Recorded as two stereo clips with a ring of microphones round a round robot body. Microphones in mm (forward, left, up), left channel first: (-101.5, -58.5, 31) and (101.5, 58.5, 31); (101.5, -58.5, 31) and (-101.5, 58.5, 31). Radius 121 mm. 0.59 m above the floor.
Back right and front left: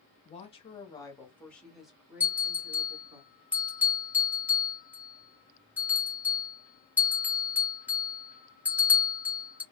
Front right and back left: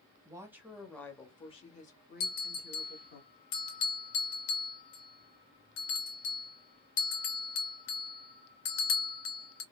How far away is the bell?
About 2 m.